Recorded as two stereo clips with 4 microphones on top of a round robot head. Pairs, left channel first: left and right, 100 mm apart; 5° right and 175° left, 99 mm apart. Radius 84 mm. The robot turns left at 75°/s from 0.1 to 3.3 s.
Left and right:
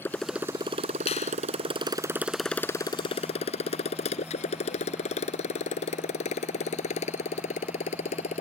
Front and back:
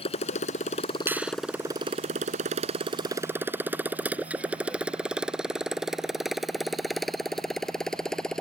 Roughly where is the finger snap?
Left.